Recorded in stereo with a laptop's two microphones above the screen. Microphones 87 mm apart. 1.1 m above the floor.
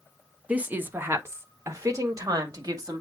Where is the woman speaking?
15° right (ahead or behind), 1.0 m; by 3.0 s 50° right (ahead or behind), 2 m.